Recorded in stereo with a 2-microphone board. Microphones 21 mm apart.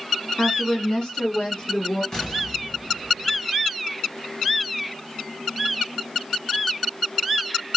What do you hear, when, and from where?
0.4 s a woman speaking: 55° left (ahead or behind), 0.6 m; by 2.0 s 50° left (ahead or behind), 1.2 m
2.1 s an explosion: 35° left (ahead or behind), 1.8 m